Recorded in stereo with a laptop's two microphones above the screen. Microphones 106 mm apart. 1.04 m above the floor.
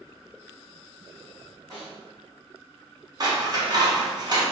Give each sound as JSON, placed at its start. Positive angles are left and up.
{"t": 1.7, "sound": "a snare drum", "side_deg": -30, "distance_m": 1.8}
{"t": 3.2, "sound": "scissors", "side_deg": -40, "distance_m": 0.8}